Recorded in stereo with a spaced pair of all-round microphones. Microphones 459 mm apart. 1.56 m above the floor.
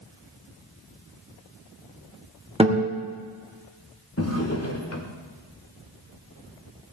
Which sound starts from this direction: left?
A drawer, at 4.2 s.